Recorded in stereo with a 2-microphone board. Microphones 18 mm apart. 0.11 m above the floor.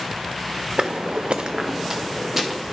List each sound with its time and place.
0.8 s footsteps: 55° right (ahead or behind), 0.7 m; by 2.6 s 10° right (ahead or behind), 1.8 m